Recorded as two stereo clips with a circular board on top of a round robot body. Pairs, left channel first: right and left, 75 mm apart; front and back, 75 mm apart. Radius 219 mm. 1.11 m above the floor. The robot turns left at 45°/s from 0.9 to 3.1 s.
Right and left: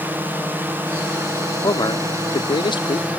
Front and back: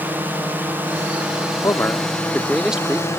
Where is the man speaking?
50° right; by 3.2 s 115° right.